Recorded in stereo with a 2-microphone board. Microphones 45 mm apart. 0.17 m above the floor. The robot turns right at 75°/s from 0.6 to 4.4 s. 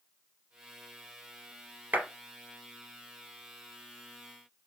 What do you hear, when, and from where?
1.9 s a clap: 40° right (ahead or behind), 2 m; by 2.1 s 30° right (ahead or behind), 2 m